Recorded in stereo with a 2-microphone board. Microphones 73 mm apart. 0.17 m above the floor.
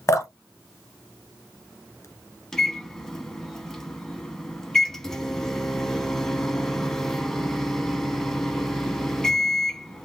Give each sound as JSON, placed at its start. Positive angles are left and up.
{"t": 0.1, "sound": "dripping", "side_deg": 40, "distance_m": 1.1}
{"t": 2.5, "sound": "a microwave", "side_deg": 5, "distance_m": 0.9}